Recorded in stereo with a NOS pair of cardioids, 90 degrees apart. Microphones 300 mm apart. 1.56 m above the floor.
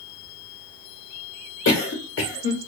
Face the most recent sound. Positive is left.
turn(degrees=45)